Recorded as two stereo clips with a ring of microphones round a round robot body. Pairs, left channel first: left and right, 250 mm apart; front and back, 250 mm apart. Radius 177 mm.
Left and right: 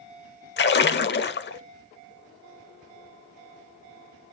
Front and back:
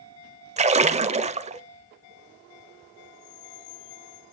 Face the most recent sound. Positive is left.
turn(degrees=120)